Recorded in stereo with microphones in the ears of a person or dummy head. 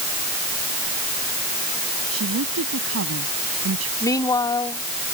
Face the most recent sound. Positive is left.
turn(degrees=15)  # may be behind; listen again after turning